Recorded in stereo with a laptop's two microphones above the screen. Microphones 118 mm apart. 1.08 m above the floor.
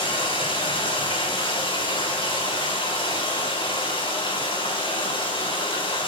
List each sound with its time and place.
0.0 s running water: 45° left (ahead or behind), 4 m